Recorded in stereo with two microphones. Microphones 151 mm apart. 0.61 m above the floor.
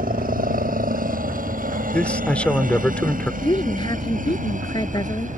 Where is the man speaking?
10° left (ahead or behind).